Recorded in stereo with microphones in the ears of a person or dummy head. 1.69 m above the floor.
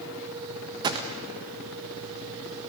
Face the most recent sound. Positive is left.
turn(degrees=-25)  # may be behind; listen again after turning